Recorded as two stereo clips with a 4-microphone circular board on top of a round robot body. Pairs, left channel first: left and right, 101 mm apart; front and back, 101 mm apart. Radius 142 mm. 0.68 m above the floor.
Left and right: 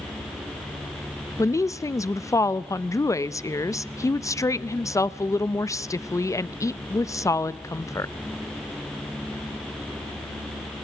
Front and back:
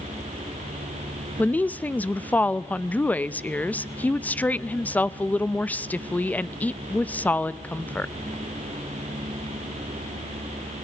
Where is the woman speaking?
60° left, 0.7 m.